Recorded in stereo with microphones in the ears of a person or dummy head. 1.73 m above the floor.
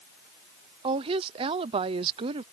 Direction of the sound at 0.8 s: 30° right (ahead or behind).